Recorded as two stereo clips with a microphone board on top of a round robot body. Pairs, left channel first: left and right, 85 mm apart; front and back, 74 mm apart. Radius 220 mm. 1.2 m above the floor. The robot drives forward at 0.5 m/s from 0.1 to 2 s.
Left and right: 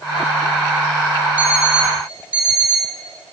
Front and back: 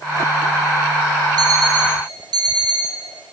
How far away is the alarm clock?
About 3 m.